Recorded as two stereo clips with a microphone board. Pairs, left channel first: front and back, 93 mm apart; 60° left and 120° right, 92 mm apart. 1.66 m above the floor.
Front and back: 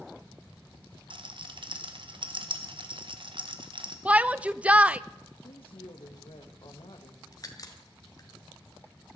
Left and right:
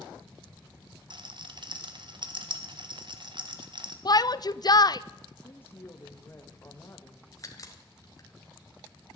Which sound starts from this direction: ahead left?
A crack, at 7.3 s.